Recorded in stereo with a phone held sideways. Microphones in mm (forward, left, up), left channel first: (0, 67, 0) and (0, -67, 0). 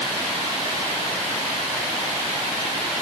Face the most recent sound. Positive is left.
No sound to turn to.